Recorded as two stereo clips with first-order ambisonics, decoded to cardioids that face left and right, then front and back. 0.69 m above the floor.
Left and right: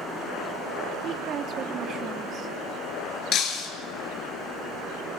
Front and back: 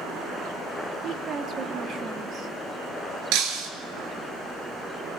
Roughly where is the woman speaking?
Behind right.